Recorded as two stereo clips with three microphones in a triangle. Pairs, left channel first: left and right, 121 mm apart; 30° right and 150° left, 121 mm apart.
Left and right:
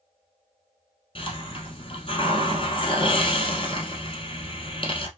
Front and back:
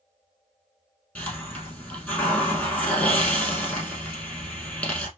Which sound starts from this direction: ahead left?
A hiss, at 1.1 s.